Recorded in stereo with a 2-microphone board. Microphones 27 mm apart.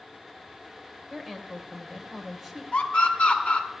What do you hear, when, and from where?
1.1 s a woman speaking: 5° right (ahead or behind), 1.6 m
2.7 s a scream: 50° left (ahead or behind), 2 m